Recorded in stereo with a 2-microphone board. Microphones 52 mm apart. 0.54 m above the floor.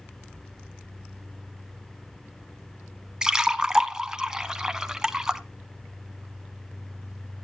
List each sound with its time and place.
3.2 s a splash: 15° right (ahead or behind), 0.7 m